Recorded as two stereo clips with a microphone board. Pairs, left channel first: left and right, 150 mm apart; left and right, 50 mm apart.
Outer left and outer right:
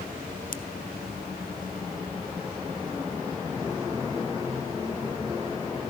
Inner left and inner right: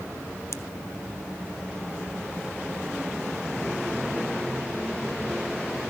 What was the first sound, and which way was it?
A pop, 70° left (ahead or behind).